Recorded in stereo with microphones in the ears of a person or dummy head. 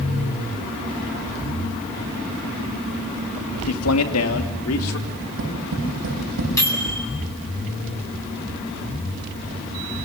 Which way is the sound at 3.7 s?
85° left.